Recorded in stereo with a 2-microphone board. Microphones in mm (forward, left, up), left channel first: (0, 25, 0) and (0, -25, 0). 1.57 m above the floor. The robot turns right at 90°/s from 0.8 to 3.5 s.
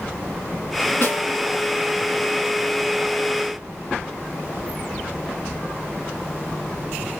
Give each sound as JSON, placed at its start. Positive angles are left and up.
{"t": 1.0, "sound": "a snare drum", "azimuth_deg": 65, "distance_m": 2.0}